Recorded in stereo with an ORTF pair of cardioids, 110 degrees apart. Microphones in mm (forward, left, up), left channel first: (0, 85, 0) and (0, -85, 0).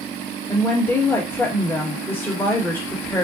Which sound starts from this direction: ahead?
A woman speaking, at 0.5 s.